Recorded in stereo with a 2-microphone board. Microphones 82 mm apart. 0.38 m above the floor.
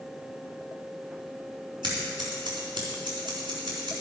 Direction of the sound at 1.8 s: 70° right (ahead or behind).